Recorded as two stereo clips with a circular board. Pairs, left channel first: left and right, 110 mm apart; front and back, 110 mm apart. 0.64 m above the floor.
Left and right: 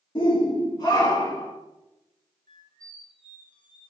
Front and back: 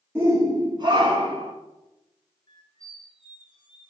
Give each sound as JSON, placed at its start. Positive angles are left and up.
{"t": 0.1, "sound": "a shout", "azimuth_deg": 115, "distance_m": 1.2}
{"t": 2.5, "sound": "a squeak", "azimuth_deg": 45, "distance_m": 1.1}